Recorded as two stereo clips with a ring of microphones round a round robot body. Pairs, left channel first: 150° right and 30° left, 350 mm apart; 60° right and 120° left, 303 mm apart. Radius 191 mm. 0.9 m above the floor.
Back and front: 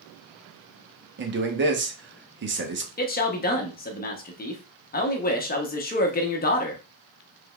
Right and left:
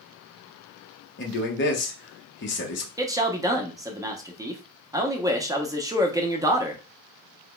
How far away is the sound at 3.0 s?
About 0.9 m.